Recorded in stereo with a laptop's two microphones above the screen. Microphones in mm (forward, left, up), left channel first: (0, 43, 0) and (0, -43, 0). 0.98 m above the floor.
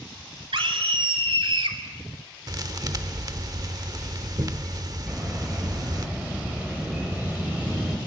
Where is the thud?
45° right (ahead or behind), 1.1 m.